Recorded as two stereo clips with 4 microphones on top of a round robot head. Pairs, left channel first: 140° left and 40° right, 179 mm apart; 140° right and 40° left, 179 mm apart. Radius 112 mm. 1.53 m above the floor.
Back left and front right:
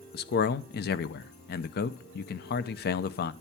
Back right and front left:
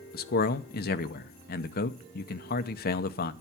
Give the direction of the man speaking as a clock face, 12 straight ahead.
6 o'clock.